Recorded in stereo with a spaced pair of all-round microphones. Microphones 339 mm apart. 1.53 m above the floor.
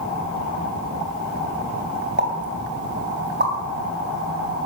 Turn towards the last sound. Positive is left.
turn(degrees=-30)  # may be behind; listen again after turning